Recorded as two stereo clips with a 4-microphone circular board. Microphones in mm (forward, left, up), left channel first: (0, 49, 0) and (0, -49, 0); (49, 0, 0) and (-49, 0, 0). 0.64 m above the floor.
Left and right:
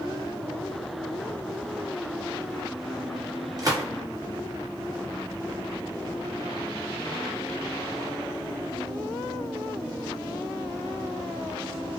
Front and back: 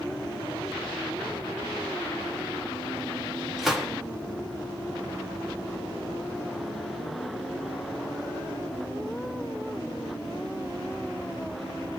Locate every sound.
3.6 s a gunshot: 90° right, 0.9 m